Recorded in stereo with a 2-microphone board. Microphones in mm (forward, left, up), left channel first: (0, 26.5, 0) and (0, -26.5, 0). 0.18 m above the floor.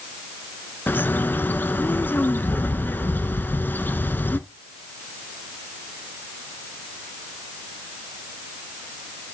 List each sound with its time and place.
0.9 s a bird: 35° left (ahead or behind), 0.5 m